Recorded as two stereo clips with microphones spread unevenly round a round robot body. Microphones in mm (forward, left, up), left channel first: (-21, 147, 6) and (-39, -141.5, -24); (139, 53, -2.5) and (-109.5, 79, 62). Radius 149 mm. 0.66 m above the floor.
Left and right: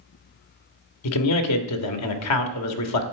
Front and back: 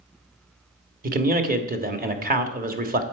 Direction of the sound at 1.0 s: 115° left.